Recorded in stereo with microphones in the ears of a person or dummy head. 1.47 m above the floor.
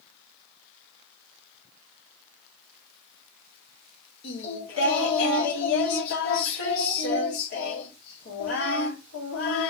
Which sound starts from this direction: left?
Singing, at 4.2 s.